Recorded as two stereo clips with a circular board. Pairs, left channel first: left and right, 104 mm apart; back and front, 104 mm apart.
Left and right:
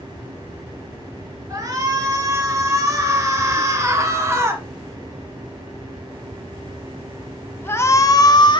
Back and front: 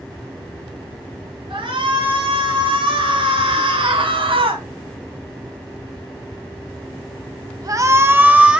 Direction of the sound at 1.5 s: 35° right.